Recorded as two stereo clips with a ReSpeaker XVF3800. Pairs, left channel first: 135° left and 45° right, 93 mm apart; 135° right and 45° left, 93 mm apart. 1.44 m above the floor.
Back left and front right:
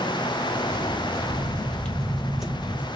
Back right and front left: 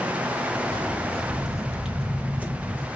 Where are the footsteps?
150° left, 1.8 m; by 2.9 s 5° left, 1.6 m.